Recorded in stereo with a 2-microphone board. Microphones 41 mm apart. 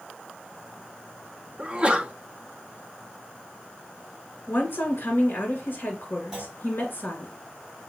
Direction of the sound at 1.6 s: 25° right (ahead or behind).